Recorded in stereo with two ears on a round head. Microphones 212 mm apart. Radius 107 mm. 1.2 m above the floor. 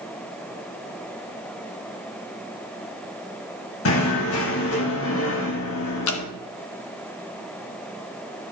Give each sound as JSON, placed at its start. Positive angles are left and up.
{"t": 3.9, "sound": "knocking", "side_deg": 60, "distance_m": 1.5}
{"t": 6.1, "sound": "dripping", "side_deg": 60, "distance_m": 1.0}